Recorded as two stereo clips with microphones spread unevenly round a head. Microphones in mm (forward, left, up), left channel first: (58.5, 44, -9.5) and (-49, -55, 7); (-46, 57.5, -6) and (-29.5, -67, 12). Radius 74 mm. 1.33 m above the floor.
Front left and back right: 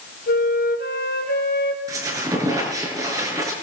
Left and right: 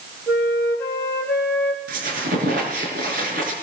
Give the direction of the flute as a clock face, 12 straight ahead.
11 o'clock.